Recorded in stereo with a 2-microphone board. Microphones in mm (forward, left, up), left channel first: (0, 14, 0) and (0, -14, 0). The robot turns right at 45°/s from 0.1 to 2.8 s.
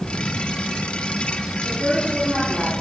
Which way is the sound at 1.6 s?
150° right.